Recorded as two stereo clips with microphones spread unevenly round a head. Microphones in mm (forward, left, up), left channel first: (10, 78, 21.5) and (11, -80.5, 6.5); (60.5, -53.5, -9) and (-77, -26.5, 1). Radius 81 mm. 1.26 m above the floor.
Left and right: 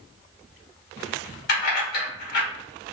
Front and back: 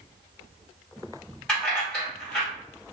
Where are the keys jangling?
75° left, 1.2 m.